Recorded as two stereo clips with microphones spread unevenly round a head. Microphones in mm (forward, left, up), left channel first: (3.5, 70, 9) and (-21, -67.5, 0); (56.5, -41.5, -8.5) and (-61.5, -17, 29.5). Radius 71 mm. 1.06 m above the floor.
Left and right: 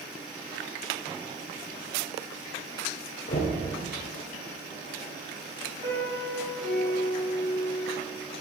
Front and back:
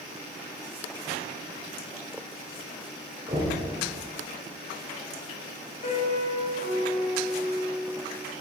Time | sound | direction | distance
3.3 | knocking | 120° left | 2.5 m
5.8 | a piano | 40° right | 4.5 m